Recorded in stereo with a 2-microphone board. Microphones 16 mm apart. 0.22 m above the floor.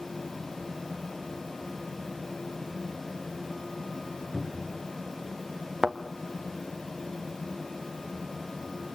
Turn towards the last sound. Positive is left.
turn(degrees=-35)  # may be behind; listen again after turning